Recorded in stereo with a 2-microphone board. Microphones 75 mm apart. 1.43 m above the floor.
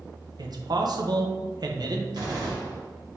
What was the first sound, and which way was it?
A man speaking, 65° right (ahead or behind).